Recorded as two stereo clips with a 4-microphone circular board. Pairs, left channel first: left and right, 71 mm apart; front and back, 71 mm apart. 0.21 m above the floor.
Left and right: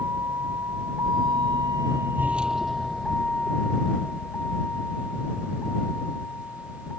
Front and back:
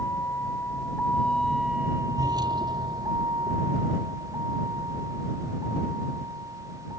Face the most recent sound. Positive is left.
turn(degrees=150)